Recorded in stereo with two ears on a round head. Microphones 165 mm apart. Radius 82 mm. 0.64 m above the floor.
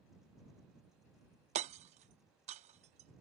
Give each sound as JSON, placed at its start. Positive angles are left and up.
{"t": 1.6, "sound": "hammering", "side_deg": -35}